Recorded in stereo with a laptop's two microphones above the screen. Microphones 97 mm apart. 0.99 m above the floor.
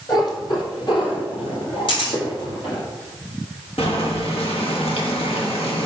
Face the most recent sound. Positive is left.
turn(degrees=75)  # may be behind; listen again after turning